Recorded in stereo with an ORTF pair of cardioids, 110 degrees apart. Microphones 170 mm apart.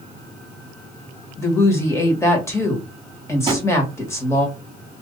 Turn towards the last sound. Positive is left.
turn(degrees=-25)